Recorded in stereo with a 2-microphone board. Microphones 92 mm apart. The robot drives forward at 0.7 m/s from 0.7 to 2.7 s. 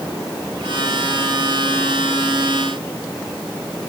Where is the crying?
No crying in this recording.